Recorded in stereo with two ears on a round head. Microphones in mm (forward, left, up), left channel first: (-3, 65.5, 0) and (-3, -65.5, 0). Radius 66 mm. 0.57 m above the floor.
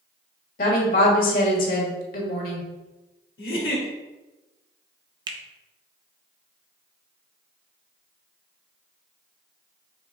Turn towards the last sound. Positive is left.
turn(degrees=-30)  # may be behind; listen again after turning